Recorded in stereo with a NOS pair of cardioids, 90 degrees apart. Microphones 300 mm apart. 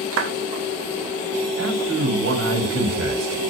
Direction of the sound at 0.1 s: 50° right.